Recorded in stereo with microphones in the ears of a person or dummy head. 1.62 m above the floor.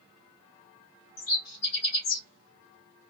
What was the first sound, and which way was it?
A bird, 50° left (ahead or behind).